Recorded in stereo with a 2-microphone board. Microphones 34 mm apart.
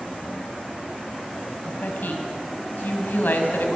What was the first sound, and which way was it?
A woman speaking, 75° left (ahead or behind).